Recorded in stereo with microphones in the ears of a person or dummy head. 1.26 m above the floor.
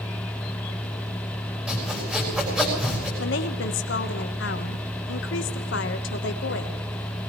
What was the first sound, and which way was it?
Sawing, centre (ahead or behind).